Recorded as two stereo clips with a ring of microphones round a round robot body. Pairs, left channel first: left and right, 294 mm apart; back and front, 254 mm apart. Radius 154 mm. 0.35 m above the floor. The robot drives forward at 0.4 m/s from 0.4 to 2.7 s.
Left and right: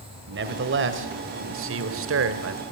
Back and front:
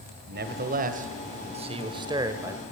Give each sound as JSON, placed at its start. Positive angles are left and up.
{"t": 0.3, "sound": "a man speaking", "azimuth_deg": -45, "distance_m": 2.0}